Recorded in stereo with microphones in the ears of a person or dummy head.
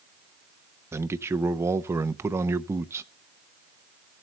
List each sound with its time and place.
0.9 s a man speaking: 15° right (ahead or behind), 0.6 m